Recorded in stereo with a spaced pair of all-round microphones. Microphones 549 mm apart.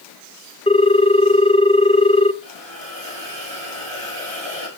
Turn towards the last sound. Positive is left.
turn(degrees=-60)  # may be behind; listen again after turning